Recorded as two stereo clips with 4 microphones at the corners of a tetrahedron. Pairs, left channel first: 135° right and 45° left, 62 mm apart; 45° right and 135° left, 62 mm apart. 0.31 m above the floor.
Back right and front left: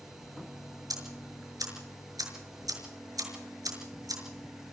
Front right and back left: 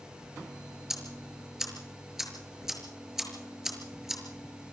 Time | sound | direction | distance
0.9 | ticking | 50° left | 6 m